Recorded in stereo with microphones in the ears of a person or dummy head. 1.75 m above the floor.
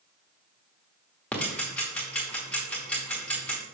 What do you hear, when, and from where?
1.3 s ticking: 10° left (ahead or behind), 1.1 m